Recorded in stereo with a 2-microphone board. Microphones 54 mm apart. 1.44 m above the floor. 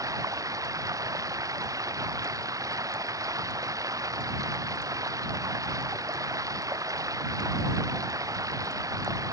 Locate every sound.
0.0 s running water: 85° right